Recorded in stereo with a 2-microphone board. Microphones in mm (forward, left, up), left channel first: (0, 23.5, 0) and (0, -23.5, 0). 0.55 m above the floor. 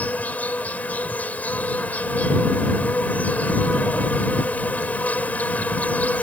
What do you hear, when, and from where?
0.0 s an insect: 35° left (ahead or behind)